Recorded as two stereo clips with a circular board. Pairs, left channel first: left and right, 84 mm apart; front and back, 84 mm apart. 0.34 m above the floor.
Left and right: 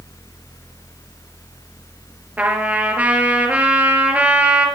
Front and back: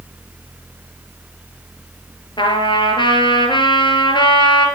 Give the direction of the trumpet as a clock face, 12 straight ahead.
1 o'clock.